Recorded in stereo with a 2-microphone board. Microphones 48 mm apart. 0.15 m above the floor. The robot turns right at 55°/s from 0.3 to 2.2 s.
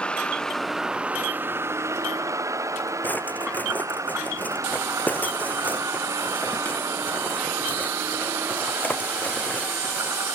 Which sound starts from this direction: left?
A drawer, at 3.0 s.